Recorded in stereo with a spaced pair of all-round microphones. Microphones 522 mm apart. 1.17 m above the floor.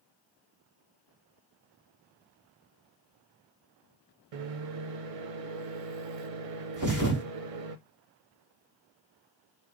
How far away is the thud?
About 0.9 m.